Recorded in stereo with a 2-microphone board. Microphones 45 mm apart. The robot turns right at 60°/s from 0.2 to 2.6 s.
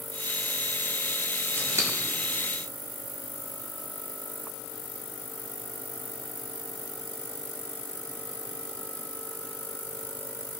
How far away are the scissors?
About 1.3 m.